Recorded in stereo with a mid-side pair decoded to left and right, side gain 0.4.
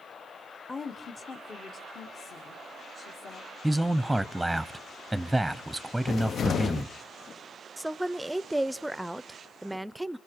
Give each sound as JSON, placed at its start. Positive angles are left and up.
{"t": 0.7, "sound": "a woman speaking", "azimuth_deg": 25, "distance_m": 0.9}
{"t": 3.6, "sound": "a man speaking", "azimuth_deg": -5, "distance_m": 0.8}
{"t": 6.1, "sound": "a cupboard door", "azimuth_deg": 60, "distance_m": 0.6}
{"t": 7.8, "sound": "a woman speaking", "azimuth_deg": -10, "distance_m": 0.6}